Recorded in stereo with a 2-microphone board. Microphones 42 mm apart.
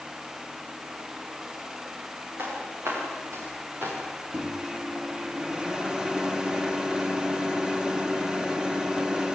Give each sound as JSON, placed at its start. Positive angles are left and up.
{"t": 2.4, "sound": "footsteps", "side_deg": -80, "distance_m": 9.5}
{"t": 4.3, "sound": "a microwave", "side_deg": -15, "distance_m": 1.3}